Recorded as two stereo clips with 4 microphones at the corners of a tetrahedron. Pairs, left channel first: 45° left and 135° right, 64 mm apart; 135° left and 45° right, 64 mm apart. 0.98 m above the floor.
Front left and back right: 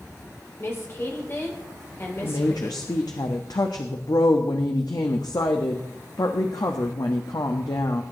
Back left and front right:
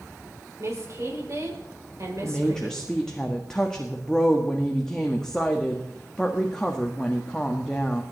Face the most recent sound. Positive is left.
turn(degrees=55)